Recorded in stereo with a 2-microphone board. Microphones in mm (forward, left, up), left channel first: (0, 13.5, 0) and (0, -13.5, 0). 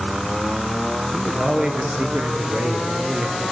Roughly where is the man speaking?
Right.